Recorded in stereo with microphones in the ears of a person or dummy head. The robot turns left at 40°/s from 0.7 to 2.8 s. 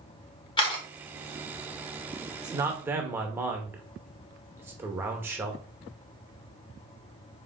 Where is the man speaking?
25° right (ahead or behind), 0.8 m; by 5.6 s 15° right (ahead or behind), 0.8 m.